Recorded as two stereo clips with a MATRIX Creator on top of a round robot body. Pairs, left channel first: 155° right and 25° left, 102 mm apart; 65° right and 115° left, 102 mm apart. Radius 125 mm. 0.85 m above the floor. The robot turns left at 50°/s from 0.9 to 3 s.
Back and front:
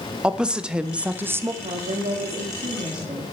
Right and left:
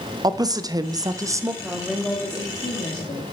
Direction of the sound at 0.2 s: 100° left.